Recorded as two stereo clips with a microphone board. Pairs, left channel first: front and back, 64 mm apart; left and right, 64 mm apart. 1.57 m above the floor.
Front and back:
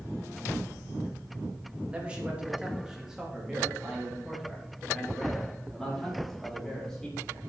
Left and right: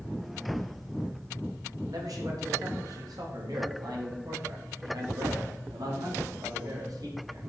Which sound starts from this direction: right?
A man speaking, at 1.9 s.